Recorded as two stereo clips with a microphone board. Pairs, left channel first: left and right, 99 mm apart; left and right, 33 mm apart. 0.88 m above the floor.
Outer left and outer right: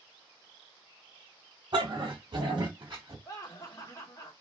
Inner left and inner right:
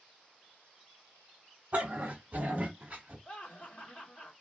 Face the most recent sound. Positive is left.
turn(degrees=35)  # may be behind; listen again after turning